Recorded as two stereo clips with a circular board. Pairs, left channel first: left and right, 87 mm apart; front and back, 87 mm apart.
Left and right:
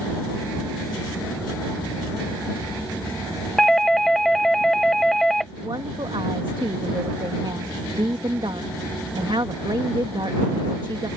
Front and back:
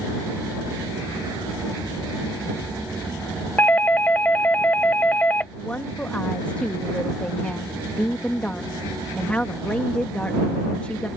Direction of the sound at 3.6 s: 10° left.